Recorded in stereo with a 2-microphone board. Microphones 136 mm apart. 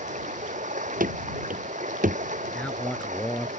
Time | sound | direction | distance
0.0 | running water | 65° right (ahead or behind) | ?
1.0 | running footsteps | 90° right | ?
2.5 | a man speaking | 10° left (ahead or behind) | ?